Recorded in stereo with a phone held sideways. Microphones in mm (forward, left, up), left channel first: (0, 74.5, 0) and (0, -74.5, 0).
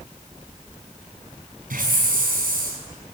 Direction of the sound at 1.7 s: 80° right.